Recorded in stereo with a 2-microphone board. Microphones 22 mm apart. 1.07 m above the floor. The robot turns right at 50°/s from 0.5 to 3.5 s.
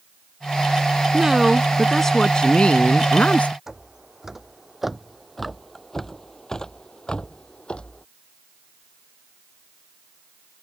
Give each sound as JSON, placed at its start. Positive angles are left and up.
{"t": 1.1, "sound": "a woman speaking", "azimuth_deg": -25}
{"t": 3.7, "sound": "footsteps", "side_deg": -20}